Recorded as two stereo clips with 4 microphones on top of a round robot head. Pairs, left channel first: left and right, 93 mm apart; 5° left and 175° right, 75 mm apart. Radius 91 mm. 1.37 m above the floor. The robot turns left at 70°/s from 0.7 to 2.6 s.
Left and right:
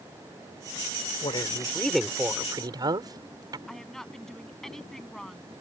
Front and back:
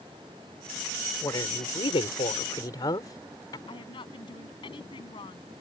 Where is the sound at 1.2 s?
55° left; by 3.6 s 40° right.